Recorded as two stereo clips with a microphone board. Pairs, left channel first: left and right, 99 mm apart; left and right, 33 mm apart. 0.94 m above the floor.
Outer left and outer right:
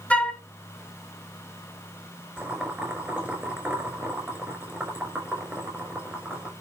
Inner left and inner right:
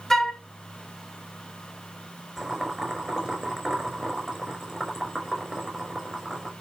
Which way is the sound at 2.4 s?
15° right (ahead or behind).